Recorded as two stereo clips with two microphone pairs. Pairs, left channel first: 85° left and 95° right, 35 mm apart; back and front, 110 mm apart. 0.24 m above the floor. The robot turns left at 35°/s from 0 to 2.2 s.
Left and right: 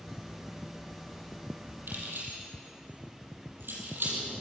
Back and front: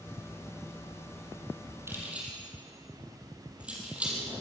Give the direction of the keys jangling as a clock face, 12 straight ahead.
2 o'clock.